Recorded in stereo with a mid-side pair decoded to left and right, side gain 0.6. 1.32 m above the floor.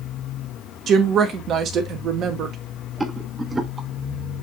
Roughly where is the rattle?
Ahead.